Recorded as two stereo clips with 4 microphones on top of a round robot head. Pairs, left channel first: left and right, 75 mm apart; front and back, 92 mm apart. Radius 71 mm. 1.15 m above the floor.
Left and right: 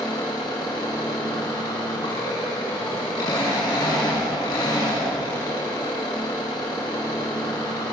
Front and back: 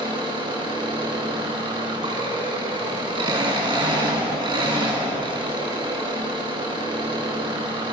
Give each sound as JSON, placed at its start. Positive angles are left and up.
{"t": 0.0, "sound": "an engine running", "azimuth_deg": 145, "distance_m": 7.0}